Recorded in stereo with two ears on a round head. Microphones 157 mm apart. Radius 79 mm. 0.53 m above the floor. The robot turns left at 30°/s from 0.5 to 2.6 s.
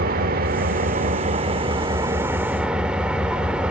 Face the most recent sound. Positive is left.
turn(degrees=-175)